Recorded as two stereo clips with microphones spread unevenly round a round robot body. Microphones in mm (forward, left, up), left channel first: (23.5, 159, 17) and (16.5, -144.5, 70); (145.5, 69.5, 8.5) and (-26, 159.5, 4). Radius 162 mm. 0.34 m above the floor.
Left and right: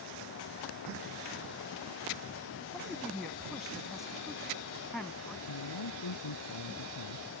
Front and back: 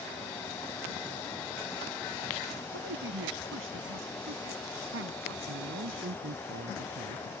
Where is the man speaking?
120° left.